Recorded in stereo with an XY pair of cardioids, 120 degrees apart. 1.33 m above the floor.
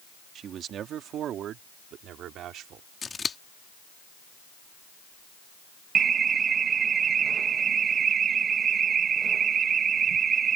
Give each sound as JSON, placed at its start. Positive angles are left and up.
{"t": 0.3, "sound": "a man speaking", "azimuth_deg": -55}
{"t": 3.0, "sound": "scissors", "azimuth_deg": 30}
{"t": 6.0, "sound": "an alarm", "azimuth_deg": -45}